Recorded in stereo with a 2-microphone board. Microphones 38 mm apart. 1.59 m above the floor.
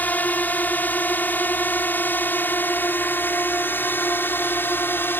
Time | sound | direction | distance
0.0 | a drone | 45° left (ahead or behind) | ?